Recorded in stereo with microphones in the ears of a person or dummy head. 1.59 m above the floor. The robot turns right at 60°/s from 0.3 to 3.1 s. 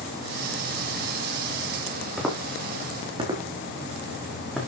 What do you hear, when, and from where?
2.2 s footsteps: 5° left (ahead or behind), 4 m